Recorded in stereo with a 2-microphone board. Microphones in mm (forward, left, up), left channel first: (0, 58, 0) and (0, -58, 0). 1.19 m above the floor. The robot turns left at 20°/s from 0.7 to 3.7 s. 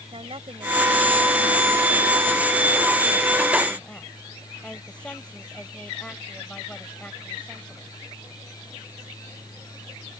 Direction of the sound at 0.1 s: 130° right.